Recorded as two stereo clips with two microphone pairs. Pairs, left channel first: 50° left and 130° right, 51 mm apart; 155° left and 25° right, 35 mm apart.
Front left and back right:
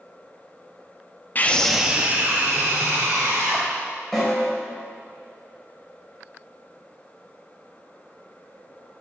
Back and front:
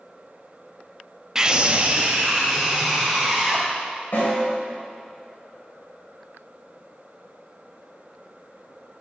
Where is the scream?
45° left, 0.6 m; by 3.7 s 90° right, 2.5 m.